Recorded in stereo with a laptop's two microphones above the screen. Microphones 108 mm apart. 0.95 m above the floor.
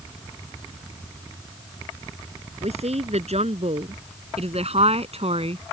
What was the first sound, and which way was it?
A woman speaking, 85° right.